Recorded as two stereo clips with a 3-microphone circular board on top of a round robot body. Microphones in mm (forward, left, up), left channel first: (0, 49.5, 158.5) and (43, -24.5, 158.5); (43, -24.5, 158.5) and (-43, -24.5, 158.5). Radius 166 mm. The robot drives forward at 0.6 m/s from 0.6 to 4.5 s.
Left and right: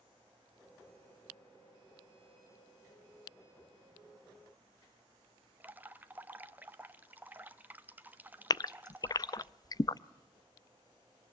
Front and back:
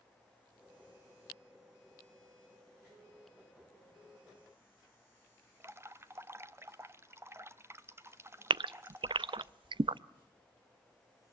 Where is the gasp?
160° left, 0.5 m.